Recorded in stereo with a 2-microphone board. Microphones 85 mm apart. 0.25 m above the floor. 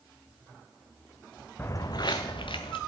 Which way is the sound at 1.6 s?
25° left (ahead or behind).